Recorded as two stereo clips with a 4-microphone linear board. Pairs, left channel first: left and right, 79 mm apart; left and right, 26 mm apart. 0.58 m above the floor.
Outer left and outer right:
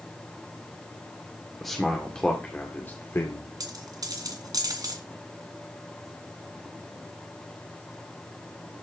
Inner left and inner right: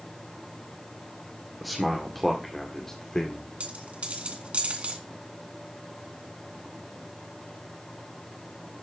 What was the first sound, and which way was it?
A man speaking, centre (ahead or behind).